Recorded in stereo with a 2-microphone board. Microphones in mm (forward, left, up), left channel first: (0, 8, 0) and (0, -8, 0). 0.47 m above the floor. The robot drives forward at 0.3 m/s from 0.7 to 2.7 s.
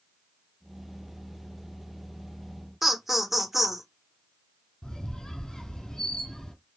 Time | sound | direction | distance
2.8 | laughter | 15° right (ahead or behind) | 0.7 m
4.8 | a squeak | 60° left (ahead or behind) | 0.9 m